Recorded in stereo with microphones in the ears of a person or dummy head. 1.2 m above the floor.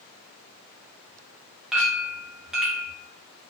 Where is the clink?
5° right (ahead or behind), 0.5 m.